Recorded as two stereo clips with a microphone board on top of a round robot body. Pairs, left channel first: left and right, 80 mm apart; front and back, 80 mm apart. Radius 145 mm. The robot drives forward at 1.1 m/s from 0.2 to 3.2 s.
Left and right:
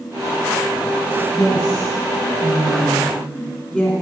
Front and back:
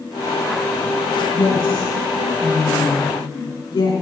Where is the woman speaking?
5° right, 6 m.